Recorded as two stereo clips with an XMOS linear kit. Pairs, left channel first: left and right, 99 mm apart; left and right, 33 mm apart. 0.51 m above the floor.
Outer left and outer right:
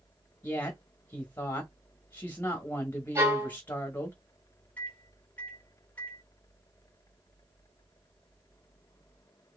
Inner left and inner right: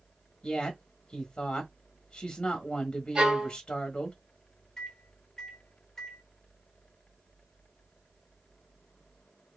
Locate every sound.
0.4 s a woman speaking: 20° left (ahead or behind), 1.3 m
3.1 s a violin: 30° right (ahead or behind), 2 m
4.8 s a microwave: 20° left (ahead or behind), 1.5 m